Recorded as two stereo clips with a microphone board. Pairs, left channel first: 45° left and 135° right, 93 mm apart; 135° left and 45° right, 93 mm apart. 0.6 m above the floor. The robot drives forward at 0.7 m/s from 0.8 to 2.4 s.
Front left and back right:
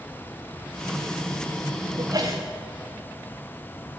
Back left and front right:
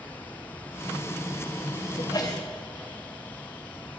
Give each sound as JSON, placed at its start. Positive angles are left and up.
{"t": 2.0, "sound": "a sneeze", "azimuth_deg": 180, "distance_m": 3.0}